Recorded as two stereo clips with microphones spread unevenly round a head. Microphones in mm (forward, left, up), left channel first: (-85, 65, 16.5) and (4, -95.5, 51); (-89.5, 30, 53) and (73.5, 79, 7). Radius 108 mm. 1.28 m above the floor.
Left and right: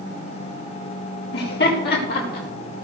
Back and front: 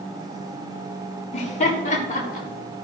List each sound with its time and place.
1.3 s laughter: 145° left, 4.5 m; by 2.5 s 160° left, 4.5 m